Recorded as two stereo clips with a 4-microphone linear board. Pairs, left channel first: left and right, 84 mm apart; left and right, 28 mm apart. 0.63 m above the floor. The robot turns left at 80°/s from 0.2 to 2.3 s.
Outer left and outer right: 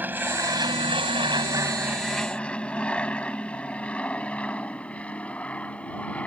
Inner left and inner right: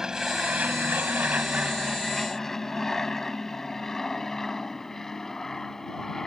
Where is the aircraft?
20° right (ahead or behind); by 6.3 s 15° left (ahead or behind).